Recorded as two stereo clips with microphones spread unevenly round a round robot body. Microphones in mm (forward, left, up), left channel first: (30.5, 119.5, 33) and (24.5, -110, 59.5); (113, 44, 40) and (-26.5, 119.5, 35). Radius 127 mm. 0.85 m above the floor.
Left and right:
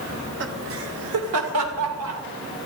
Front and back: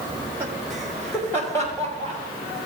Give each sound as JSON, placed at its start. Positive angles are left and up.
{"t": 0.1, "sound": "laughter", "azimuth_deg": -140, "distance_m": 1.6}